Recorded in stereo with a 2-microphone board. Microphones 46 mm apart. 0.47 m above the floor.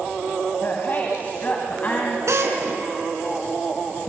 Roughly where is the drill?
Right.